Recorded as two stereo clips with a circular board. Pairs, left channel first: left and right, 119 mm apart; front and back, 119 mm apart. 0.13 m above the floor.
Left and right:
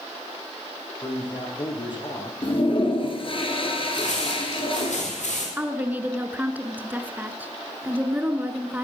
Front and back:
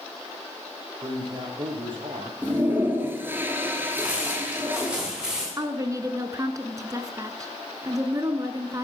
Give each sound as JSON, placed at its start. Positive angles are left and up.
{"t": 1.0, "sound": "a man speaking", "azimuth_deg": 135, "distance_m": 4.5}
{"t": 2.4, "sound": "a toilet flushing", "azimuth_deg": 110, "distance_m": 2.5}
{"t": 3.9, "sound": "footsteps", "azimuth_deg": 100, "distance_m": 9.0}
{"t": 5.6, "sound": "a woman speaking", "azimuth_deg": -155, "distance_m": 1.3}